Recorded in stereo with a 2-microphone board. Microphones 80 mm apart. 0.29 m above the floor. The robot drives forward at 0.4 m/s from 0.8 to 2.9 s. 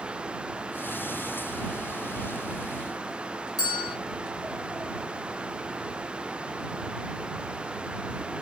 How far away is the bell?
About 1.6 m.